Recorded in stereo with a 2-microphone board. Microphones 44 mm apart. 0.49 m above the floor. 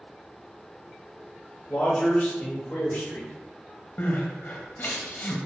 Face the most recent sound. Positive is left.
turn(degrees=45)  # may be behind; listen again after turning